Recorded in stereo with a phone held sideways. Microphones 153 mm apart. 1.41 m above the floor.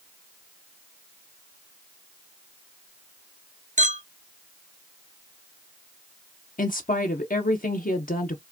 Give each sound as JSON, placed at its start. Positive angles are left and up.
{"t": 3.8, "sound": "a clink", "side_deg": -55, "distance_m": 0.8}
{"t": 6.6, "sound": "a woman speaking", "side_deg": 70, "distance_m": 0.7}